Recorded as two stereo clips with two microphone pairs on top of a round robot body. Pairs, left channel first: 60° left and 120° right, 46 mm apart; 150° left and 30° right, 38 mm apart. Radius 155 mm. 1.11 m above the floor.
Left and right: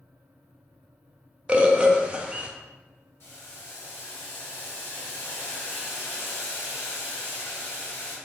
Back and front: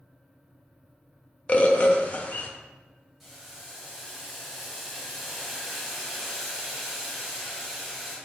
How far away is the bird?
About 0.5 m.